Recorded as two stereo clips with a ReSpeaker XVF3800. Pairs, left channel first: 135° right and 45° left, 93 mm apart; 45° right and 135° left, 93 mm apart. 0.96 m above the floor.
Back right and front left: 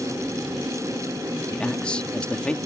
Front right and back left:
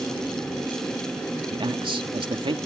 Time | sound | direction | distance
1.5 | a man speaking | 150° left | ?